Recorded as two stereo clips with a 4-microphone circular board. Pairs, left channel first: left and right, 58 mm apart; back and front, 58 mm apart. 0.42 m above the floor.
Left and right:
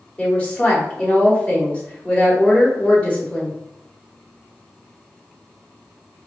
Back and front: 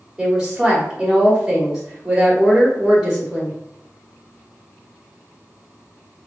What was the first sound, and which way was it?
A woman speaking, 60° left.